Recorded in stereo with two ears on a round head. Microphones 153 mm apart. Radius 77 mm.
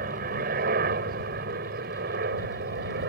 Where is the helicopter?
55° right (ahead or behind); by 3.1 s 60° right (ahead or behind).